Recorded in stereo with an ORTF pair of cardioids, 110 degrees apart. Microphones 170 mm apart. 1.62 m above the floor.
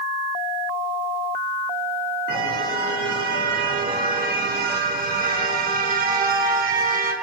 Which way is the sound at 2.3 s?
65° right.